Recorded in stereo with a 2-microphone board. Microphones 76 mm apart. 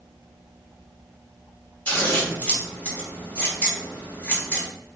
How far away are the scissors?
About 1.1 m.